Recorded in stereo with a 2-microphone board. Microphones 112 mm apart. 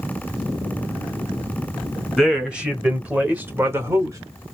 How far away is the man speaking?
About 2.0 m.